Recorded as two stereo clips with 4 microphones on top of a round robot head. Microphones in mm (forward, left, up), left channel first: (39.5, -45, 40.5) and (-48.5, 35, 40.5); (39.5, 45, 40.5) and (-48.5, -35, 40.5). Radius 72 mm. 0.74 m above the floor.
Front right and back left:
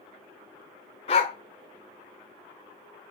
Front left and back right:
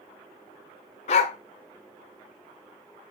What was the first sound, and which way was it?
A dog barking, straight ahead.